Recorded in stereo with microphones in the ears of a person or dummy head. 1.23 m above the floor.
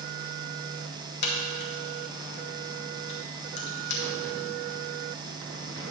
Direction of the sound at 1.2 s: 55° left (ahead or behind).